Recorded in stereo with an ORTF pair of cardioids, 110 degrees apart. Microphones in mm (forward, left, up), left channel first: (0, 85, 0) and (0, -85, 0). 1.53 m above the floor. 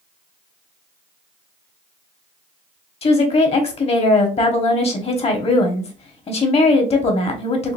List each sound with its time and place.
3.0 s a woman speaking: 35° left, 1.0 m